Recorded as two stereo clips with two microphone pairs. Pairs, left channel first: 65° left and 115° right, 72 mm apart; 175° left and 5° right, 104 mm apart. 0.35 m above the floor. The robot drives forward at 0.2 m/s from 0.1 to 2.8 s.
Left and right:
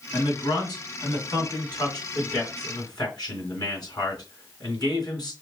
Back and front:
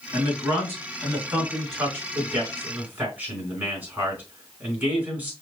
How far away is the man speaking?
About 3.5 m.